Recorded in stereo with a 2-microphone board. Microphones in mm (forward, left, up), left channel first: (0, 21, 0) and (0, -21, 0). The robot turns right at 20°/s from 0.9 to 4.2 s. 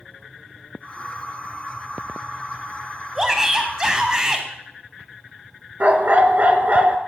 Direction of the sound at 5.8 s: 40° right (ahead or behind).